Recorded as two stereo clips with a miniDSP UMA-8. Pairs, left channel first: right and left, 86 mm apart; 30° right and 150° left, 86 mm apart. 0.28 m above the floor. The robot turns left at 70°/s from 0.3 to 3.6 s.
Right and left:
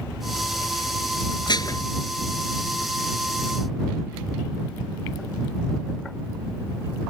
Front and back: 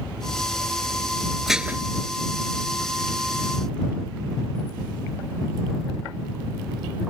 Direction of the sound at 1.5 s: 120° right.